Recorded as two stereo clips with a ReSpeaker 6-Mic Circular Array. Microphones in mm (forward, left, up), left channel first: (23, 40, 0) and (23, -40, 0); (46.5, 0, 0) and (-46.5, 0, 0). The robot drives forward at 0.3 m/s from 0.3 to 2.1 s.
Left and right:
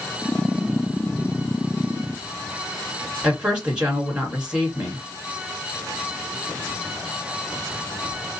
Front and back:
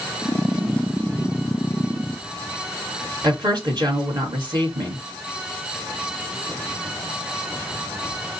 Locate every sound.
3.2 s a woman speaking: 165° right, 2.5 m